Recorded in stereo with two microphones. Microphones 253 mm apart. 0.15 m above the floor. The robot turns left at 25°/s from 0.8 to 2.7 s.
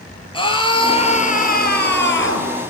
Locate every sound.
0.3 s a scream: 160° left, 3.5 m; by 2.5 s 115° left, 3.5 m